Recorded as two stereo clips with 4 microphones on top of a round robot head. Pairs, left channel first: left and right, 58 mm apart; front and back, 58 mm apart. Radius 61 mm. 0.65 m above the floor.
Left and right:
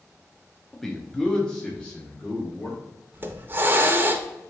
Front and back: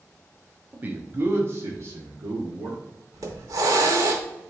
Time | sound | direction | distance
0.7 | a man speaking | 170° left | 0.7 m
3.1 | a hiss | 140° right | 0.6 m